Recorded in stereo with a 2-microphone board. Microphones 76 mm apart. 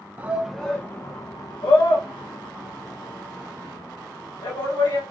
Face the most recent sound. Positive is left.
turn(degrees=90)